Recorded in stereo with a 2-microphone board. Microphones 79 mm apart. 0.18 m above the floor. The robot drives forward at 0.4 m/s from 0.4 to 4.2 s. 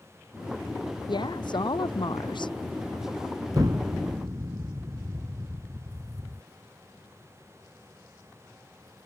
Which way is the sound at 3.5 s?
50° right (ahead or behind).